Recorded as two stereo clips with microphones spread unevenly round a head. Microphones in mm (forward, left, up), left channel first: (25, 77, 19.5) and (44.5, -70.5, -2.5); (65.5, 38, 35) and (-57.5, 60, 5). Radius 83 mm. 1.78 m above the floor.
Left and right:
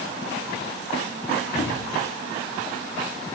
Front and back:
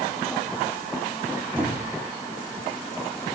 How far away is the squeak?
About 1.6 m.